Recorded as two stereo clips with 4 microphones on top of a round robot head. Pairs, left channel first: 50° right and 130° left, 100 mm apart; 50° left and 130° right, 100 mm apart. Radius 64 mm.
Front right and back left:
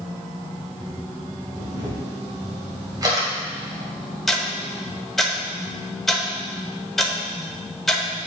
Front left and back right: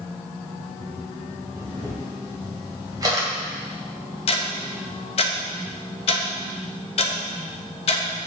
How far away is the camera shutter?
About 2 m.